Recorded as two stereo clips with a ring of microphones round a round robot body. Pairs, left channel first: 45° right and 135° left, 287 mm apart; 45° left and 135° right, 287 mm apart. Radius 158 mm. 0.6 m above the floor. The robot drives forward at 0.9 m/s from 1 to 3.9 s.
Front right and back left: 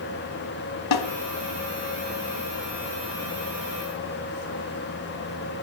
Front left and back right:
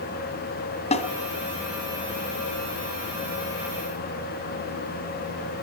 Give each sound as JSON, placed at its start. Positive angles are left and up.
{"t": 0.9, "sound": "a snare drum", "azimuth_deg": -25, "distance_m": 1.7}